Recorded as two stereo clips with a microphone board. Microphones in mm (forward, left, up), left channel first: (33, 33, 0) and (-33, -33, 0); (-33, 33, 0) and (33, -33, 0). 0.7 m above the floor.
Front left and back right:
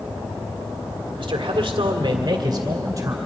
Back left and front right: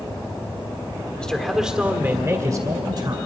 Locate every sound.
1.2 s a man speaking: 145° right, 2 m; by 3.1 s 80° right, 3 m